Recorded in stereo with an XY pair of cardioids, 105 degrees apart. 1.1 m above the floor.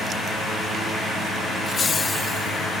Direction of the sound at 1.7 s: 45° left.